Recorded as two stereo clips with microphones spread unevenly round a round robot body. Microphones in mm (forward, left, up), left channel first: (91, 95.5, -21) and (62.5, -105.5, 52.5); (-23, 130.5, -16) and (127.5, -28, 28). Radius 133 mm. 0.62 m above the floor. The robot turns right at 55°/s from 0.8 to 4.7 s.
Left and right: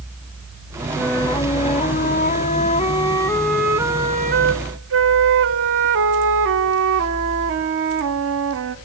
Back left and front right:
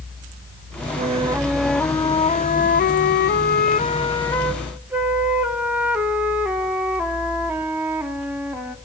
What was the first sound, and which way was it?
A flute, 15° left.